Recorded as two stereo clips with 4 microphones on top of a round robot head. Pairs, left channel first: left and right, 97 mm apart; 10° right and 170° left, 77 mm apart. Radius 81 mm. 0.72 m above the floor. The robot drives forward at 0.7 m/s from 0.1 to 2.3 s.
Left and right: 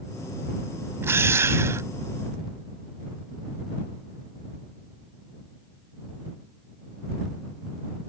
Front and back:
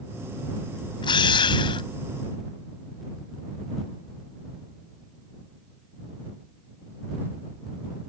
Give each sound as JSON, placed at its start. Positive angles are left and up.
{"t": 1.0, "sound": "a drill", "azimuth_deg": -20}